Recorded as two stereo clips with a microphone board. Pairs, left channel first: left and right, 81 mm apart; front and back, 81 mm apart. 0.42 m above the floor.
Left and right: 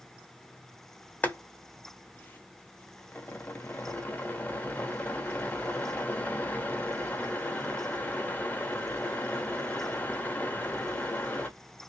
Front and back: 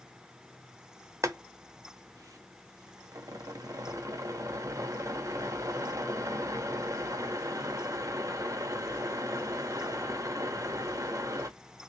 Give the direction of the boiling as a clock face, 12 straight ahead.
7 o'clock.